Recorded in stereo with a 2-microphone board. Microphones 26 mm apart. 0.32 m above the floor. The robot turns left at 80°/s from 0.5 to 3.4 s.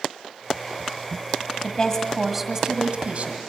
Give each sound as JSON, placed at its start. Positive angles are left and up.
{"t": 1.6, "sound": "a woman speaking", "azimuth_deg": 50, "distance_m": 1.6}